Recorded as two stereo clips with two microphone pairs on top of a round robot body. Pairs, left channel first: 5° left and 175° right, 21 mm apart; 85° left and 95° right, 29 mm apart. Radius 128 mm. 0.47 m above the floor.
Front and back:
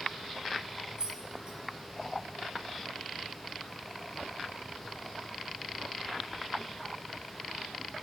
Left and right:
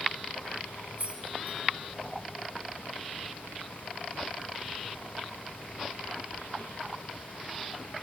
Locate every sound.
1.0 s keys jangling: 120° right, 1.0 m